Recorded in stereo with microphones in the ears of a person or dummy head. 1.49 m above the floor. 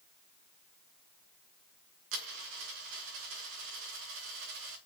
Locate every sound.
2.1 s a dropped coin: 65° right (ahead or behind), 2.5 m